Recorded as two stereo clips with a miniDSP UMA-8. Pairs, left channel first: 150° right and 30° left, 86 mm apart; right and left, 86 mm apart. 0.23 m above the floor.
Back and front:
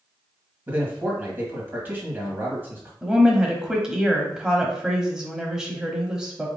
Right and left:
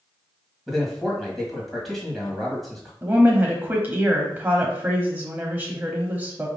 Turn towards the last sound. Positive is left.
turn(degrees=95)